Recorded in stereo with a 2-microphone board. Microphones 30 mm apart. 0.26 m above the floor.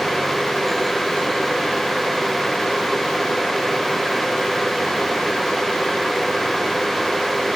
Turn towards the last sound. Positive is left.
No sound to turn to.